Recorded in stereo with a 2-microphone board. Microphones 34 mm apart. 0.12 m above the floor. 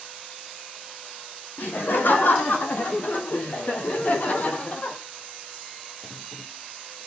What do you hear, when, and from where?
1.6 s laughter: 75° left (ahead or behind), 6.5 m; by 5.0 s 40° left (ahead or behind), 5 m